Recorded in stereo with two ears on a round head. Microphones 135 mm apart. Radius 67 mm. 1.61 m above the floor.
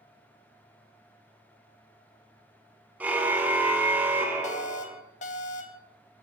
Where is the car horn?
10° right (ahead or behind), 2.5 m; by 5.0 s 15° right (ahead or behind), 4.5 m.